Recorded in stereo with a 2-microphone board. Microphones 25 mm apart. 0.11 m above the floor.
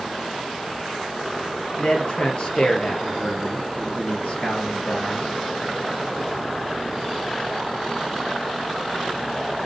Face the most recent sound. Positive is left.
turn(degrees=50)  # may be behind; listen again after turning